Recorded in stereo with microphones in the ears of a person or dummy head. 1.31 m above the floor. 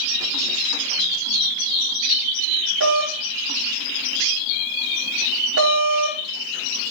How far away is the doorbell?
About 6.5 m.